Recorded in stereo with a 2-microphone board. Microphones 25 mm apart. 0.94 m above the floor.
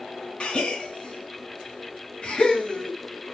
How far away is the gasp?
About 1.3 m.